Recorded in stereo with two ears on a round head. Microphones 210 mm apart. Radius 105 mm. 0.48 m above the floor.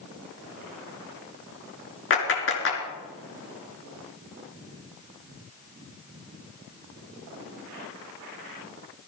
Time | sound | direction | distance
2.1 | a clap | 55° left (ahead or behind) | 4.5 m